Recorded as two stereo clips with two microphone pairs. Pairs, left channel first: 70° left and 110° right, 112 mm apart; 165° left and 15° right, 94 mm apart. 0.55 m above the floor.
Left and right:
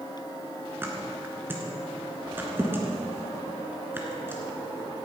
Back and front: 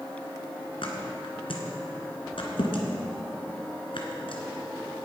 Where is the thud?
Straight behind, 1.9 m.